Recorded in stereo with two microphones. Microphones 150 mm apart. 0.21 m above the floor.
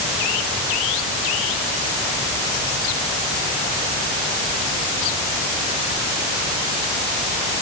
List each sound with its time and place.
Only background noise.